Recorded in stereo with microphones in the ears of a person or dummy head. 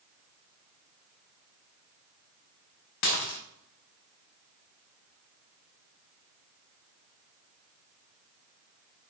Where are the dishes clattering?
50° left (ahead or behind), 0.7 m.